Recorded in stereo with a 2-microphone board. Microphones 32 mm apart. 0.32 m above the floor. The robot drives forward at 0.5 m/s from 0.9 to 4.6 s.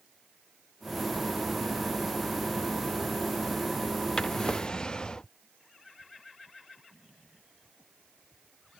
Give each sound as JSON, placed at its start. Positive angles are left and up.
{"t": 4.2, "sound": "a drawer", "side_deg": 25}